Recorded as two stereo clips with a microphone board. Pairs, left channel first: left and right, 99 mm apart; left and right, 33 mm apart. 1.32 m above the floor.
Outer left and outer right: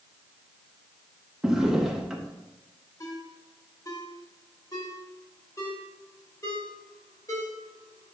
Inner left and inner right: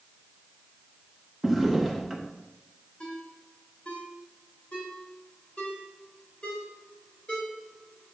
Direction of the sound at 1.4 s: 5° right (ahead or behind).